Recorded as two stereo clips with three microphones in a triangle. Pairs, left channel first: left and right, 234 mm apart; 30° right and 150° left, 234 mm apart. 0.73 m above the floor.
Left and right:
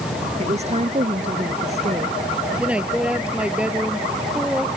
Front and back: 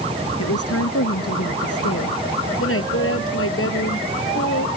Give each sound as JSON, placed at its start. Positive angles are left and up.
{"t": 0.4, "sound": "a woman speaking", "azimuth_deg": -30}
{"t": 2.6, "sound": "a woman speaking", "azimuth_deg": -5}